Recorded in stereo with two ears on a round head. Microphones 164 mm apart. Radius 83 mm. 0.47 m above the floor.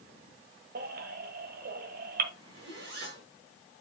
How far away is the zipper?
About 5 m.